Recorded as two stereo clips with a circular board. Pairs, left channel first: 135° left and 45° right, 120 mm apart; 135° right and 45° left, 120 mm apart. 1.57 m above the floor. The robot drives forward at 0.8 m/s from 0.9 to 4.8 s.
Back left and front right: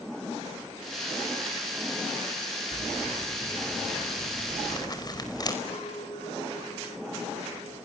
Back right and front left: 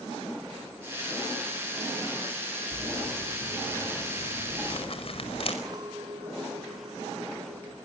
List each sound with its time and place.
2.7 s crumpling: 165° right, 3 m; by 5.5 s 170° right, 4.5 m
5.7 s a clink: 100° left, 2.5 m